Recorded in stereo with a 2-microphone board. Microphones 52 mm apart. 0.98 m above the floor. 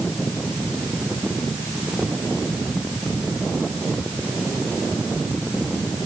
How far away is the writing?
No writing in this recording.